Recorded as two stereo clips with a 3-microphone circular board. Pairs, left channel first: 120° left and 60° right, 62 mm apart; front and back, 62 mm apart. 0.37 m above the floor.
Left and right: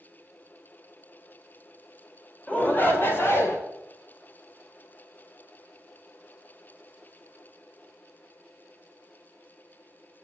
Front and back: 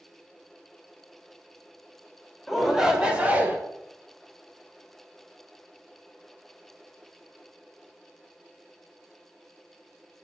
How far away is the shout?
About 1.1 m.